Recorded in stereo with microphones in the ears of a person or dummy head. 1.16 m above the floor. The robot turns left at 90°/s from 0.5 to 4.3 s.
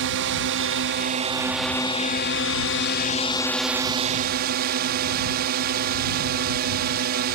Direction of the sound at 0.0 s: 80° right.